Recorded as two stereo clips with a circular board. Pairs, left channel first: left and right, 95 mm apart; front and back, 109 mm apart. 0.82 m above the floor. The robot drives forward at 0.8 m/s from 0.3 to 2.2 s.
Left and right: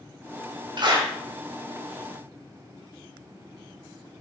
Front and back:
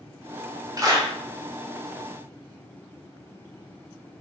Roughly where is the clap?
Behind right.